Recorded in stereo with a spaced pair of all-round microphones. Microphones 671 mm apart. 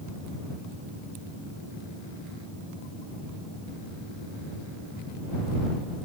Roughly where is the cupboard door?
No cupboard door in this recording.